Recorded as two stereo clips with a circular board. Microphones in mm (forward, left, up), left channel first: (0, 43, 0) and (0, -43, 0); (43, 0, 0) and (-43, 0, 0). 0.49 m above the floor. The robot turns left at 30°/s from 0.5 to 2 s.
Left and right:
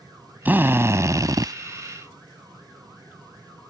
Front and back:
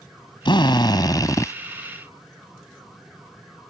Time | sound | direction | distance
0.5 | a drill | 20° right | ?